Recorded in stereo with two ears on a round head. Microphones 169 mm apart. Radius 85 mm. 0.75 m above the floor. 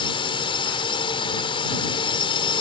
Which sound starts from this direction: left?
A drone, at 0.0 s.